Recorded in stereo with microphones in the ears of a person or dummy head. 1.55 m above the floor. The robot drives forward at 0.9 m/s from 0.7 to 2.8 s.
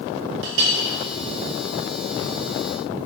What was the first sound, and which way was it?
A clink, 65° right (ahead or behind).